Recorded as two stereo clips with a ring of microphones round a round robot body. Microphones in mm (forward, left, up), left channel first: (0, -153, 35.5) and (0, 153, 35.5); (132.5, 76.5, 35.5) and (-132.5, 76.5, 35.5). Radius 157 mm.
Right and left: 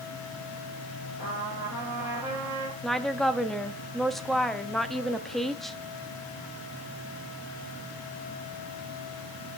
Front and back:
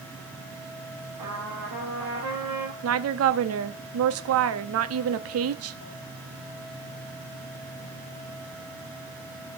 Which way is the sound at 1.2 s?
170° left.